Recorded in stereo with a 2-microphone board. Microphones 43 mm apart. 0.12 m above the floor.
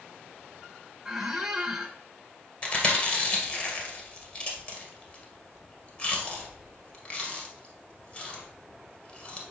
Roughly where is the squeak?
Centre.